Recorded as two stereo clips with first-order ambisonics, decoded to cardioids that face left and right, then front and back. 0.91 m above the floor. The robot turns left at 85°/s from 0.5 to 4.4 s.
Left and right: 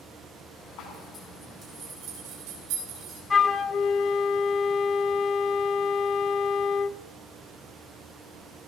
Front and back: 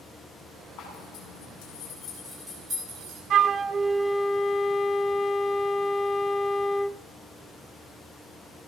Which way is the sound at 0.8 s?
40° left.